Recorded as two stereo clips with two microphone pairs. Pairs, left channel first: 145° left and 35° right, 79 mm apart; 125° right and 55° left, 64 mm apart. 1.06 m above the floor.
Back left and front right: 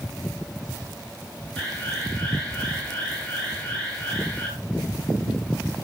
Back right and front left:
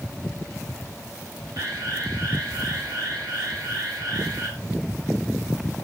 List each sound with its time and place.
1.6 s an alarm: 70° left, 7 m